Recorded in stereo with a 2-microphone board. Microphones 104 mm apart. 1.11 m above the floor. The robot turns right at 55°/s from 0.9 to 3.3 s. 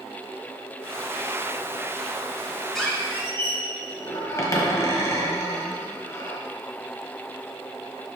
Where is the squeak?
Straight ahead, 1.5 m; by 6.4 s 30° left, 1.5 m.